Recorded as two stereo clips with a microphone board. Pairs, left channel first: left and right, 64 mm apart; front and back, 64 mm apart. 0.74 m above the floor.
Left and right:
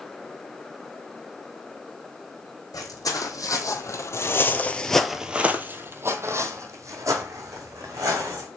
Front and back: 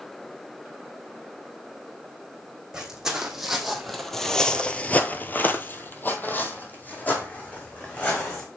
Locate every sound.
2.7 s footsteps: 100° left, 1.9 m; by 8.5 s 65° right, 3 m